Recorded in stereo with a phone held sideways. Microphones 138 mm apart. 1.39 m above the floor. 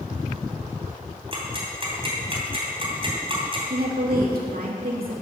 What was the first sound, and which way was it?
Ticking, 35° right (ahead or behind).